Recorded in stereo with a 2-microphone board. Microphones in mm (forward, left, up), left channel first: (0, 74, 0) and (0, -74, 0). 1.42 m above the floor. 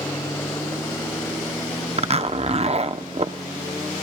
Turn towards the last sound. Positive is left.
turn(degrees=-45)  # may be behind; listen again after turning